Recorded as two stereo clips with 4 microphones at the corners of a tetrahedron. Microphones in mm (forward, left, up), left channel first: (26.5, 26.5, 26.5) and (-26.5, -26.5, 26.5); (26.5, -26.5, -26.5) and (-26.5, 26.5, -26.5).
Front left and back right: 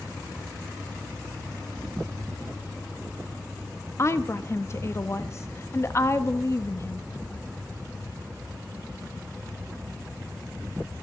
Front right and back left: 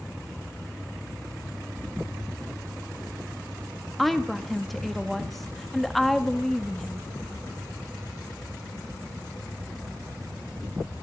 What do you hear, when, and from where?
4.0 s a woman speaking: 45° left, 0.9 m